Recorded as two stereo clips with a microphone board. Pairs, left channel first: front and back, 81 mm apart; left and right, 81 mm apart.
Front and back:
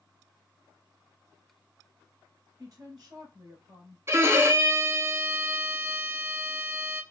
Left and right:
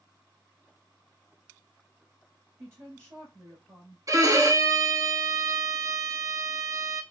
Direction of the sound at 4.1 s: 130° right.